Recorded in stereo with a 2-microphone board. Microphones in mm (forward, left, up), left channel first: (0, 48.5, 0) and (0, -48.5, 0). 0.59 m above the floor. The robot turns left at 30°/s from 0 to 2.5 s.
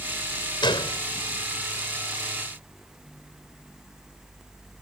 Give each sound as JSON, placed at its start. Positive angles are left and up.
{"t": 0.6, "sound": "a gunshot", "side_deg": 55}